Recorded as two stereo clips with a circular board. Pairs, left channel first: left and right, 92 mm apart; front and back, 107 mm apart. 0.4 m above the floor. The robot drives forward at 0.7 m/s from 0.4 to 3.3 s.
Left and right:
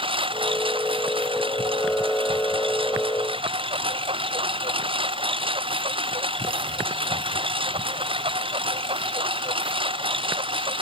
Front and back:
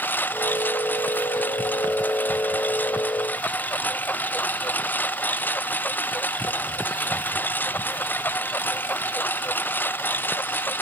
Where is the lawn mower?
70° right.